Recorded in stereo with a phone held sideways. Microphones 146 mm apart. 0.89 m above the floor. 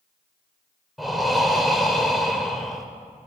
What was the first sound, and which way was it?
Breathing, centre (ahead or behind).